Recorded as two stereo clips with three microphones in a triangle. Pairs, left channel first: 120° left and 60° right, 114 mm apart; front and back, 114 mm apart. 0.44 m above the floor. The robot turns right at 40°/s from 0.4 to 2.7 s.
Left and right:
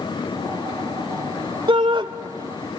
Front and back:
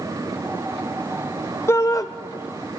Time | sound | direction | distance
1.7 | a shout | 60° right | 1.5 m